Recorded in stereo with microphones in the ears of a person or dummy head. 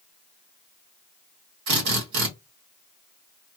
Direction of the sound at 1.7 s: 55° right (ahead or behind).